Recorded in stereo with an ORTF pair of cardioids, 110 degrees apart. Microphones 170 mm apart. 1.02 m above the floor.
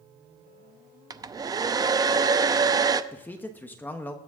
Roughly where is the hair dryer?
Ahead right.